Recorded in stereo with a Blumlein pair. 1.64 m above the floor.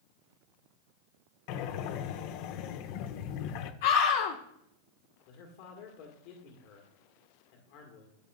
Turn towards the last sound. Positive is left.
turn(degrees=50)